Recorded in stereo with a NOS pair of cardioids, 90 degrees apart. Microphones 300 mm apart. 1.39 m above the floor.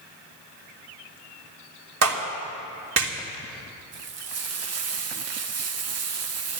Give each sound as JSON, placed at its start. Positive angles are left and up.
{"t": 2.0, "sound": "a clap", "azimuth_deg": -55, "distance_m": 3.0}
{"t": 3.9, "sound": "frying", "azimuth_deg": -55, "distance_m": 1.3}